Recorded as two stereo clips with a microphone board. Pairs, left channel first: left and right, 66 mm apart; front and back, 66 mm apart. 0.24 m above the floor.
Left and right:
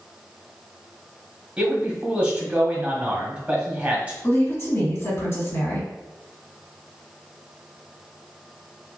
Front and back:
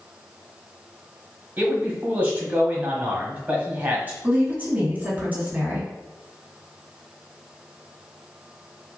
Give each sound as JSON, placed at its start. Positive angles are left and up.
{"t": 1.6, "sound": "a man speaking", "azimuth_deg": -145, "distance_m": 1.2}
{"t": 4.2, "sound": "a woman speaking", "azimuth_deg": 125, "distance_m": 2.0}